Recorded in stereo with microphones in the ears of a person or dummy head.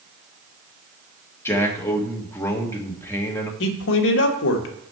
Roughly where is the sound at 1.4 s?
Centre.